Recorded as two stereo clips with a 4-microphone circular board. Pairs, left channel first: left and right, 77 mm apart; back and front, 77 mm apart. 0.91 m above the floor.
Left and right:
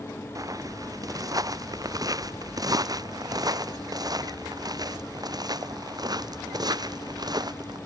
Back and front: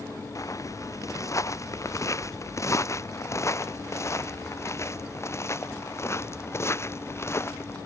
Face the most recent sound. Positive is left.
turn(degrees=-125)